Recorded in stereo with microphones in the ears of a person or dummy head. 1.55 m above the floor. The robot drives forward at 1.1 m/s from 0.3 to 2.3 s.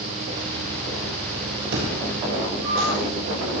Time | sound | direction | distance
1.7 | an explosion | 55° right (ahead or behind) | 6.5 m